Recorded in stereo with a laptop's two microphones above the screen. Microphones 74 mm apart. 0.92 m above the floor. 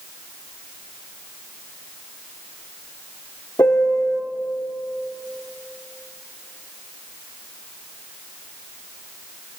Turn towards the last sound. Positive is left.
turn(degrees=45)  # may be behind; listen again after turning